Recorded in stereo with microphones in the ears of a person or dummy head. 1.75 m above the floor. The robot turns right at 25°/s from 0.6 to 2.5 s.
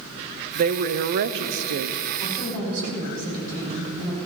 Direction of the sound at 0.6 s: 130° right.